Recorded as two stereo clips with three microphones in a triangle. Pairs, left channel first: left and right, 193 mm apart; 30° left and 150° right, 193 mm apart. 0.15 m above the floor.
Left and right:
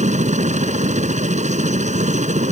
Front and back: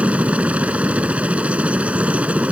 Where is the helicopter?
70° right.